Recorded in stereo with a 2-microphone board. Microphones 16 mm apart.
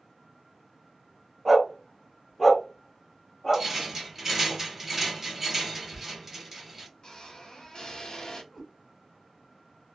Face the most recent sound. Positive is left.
turn(degrees=0)  # may be behind; listen again after turning